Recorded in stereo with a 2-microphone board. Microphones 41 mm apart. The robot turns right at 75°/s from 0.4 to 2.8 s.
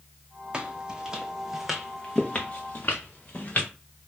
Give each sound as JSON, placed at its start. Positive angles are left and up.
{"t": 0.5, "sound": "footsteps", "side_deg": -25, "distance_m": 0.6}